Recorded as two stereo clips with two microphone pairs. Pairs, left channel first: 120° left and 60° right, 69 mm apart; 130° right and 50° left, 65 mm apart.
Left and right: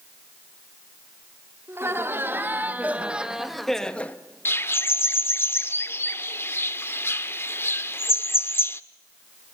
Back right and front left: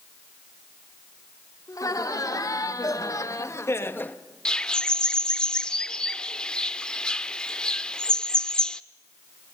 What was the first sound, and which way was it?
Laughter, 110° right.